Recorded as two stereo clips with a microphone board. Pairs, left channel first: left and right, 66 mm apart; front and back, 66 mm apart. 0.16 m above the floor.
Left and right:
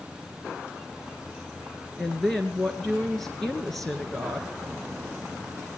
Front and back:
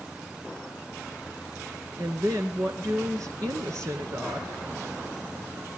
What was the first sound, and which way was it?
A woman speaking, 170° left.